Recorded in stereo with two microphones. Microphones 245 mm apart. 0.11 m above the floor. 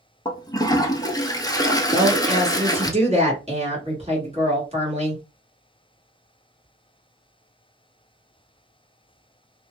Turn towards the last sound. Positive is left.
turn(degrees=-25)  # may be behind; listen again after turning